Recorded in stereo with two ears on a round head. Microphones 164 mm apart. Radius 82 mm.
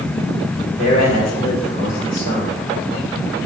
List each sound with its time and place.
0.8 s a man speaking: 50° left (ahead or behind), 3 m